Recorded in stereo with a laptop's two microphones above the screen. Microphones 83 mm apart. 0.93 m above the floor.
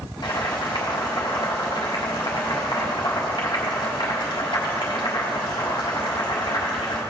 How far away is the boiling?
About 3 m.